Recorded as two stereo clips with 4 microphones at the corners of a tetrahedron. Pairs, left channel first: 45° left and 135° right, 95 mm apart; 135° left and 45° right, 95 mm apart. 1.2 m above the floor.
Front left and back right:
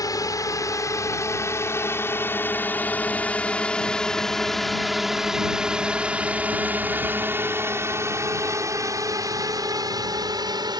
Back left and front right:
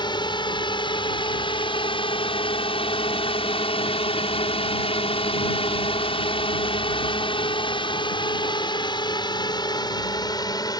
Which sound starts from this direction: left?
A drone, at 0.0 s.